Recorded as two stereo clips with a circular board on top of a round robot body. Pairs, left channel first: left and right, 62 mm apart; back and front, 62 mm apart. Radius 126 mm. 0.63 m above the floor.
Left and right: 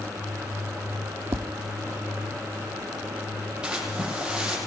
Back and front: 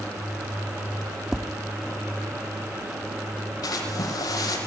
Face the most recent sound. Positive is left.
turn(degrees=-170)